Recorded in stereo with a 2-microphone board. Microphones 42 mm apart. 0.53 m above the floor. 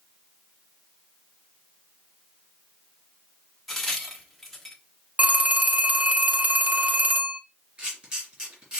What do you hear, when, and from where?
3.7 s a crack: 5° left (ahead or behind), 1.1 m
5.2 s a phone ringing: 35° right (ahead or behind), 0.6 m
7.8 s a camera shutter: 25° right (ahead or behind), 2.5 m